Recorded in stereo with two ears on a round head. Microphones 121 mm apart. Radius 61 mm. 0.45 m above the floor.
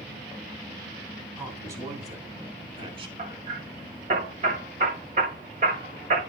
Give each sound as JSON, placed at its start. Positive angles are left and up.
{"t": 1.4, "sound": "a man speaking", "side_deg": -20, "distance_m": 3.5}
{"t": 3.2, "sound": "hammering", "side_deg": -60, "distance_m": 7.5}